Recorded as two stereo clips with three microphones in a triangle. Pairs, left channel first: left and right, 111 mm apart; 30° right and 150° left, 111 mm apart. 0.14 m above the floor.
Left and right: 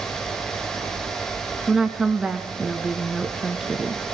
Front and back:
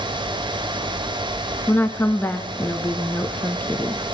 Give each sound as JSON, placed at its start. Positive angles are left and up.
{"t": 1.7, "sound": "a woman speaking", "azimuth_deg": -15, "distance_m": 1.3}